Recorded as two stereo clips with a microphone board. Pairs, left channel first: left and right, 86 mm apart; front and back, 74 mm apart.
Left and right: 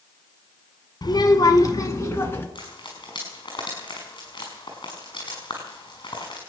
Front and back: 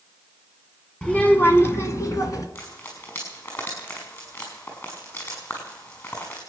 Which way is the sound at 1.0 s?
75° left.